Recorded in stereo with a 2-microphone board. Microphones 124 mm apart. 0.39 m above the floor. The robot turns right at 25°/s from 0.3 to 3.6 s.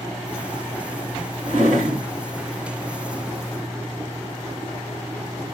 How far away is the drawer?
About 1.5 m.